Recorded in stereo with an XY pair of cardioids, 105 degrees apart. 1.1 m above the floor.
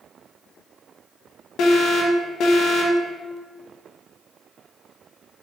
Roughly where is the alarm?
Left.